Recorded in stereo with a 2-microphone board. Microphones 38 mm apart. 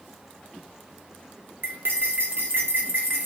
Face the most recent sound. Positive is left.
turn(degrees=-70)  # may be behind; listen again after turning